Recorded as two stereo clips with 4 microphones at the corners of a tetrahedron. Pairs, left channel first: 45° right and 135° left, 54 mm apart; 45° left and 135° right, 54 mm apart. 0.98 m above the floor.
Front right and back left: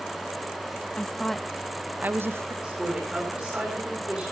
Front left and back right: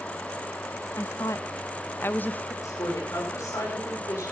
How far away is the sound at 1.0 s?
About 1.1 m.